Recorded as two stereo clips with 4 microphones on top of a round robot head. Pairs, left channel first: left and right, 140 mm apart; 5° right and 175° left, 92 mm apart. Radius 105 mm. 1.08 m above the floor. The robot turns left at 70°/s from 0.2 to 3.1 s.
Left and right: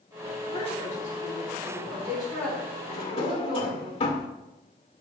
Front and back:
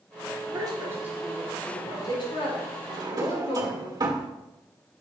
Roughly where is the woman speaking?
Behind left.